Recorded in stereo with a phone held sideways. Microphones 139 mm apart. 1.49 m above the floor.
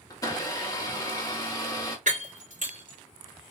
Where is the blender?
25° left (ahead or behind), 1.0 m.